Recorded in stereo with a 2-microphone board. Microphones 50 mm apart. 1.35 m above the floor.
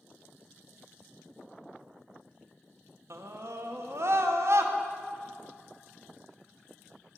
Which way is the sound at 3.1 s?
65° right (ahead or behind).